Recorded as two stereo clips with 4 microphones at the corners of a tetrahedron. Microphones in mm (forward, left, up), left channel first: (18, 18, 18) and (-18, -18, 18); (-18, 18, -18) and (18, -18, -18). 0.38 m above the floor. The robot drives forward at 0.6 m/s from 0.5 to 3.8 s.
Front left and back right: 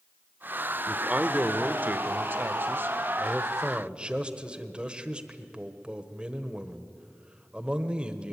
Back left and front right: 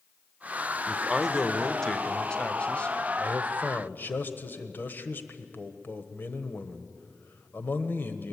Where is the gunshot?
No gunshot in this recording.